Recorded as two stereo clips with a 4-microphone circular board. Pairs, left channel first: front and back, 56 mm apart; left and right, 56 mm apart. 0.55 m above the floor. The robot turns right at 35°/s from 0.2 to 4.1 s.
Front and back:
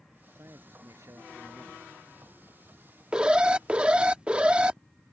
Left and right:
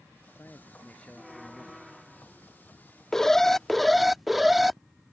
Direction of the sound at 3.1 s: 150° left.